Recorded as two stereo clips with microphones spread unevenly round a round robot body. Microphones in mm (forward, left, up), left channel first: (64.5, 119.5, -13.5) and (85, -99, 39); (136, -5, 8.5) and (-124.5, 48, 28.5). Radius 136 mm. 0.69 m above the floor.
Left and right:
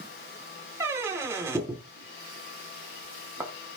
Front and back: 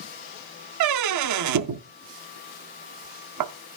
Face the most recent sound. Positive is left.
turn(degrees=-165)